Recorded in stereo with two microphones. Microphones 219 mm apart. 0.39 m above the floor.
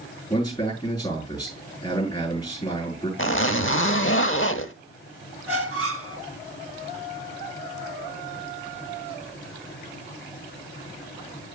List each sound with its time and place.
0.3 s a man speaking: 20° left (ahead or behind), 6 m
3.2 s a zipper: 65° left (ahead or behind), 0.9 m
5.5 s a squeak: 85° right, 2 m